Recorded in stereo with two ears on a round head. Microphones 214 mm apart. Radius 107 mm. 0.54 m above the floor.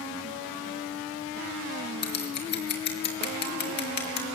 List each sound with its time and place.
2.0 s scissors: 50° left (ahead or behind), 3.5 m